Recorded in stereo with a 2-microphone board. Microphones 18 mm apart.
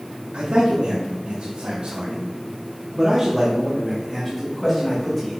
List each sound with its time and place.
0.3 s a man speaking: 75° right (ahead or behind), 1.6 m; by 5.4 s 15° left (ahead or behind), 2 m